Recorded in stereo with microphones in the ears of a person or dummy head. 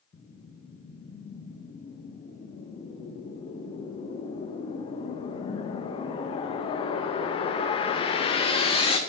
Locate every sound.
0.1 s a whoosh: 30° left (ahead or behind), 0.5 m